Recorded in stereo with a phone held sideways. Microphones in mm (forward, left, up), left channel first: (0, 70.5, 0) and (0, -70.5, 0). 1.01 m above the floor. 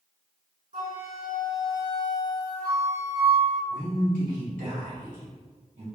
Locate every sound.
0.7 s a flute: 65° right (ahead or behind), 1.8 m
3.7 s a man speaking: 80° right, 1.9 m